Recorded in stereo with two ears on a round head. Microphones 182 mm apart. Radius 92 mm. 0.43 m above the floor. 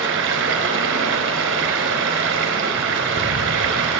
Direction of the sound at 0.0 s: 70° right (ahead or behind).